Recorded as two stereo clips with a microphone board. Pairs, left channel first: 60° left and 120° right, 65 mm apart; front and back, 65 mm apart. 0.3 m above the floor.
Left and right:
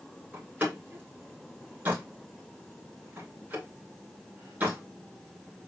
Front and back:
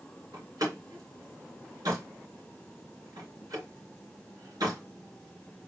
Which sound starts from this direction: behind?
A door slam, at 0.3 s.